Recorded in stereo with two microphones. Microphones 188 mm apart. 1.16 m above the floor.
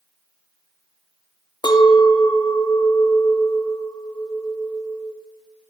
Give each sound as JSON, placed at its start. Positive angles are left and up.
{"t": 1.6, "sound": "a clink", "side_deg": 25, "distance_m": 0.6}